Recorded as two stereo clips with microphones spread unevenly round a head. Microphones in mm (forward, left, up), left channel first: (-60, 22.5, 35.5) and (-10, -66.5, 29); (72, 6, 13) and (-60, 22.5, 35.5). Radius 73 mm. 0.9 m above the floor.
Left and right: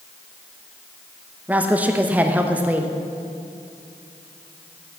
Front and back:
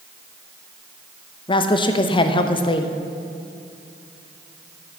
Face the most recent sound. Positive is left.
turn(degrees=5)